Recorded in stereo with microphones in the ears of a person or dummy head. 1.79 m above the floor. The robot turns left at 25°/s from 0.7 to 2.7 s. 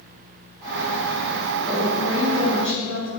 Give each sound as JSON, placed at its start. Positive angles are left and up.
{"t": 1.7, "sound": "a woman speaking", "side_deg": 10, "distance_m": 2.0}